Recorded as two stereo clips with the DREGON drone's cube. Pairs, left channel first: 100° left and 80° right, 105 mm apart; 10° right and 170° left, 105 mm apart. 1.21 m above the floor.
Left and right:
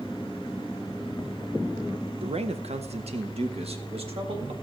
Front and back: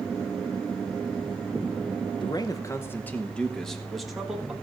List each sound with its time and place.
2.2 s a man speaking: 55° right, 0.8 m; by 4.5 s 105° right, 1.7 m